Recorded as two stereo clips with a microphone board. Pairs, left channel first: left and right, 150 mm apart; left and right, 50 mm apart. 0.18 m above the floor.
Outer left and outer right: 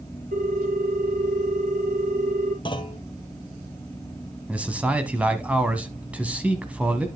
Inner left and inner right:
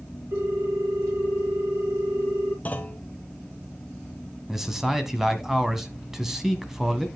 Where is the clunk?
30° left (ahead or behind), 1.0 m.